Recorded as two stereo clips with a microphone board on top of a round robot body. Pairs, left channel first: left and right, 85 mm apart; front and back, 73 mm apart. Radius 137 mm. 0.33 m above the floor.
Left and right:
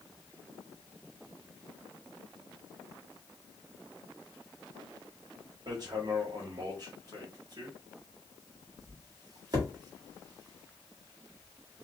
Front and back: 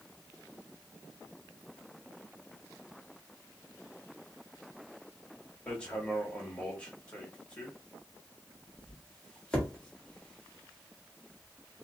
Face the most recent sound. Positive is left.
turn(degrees=-70)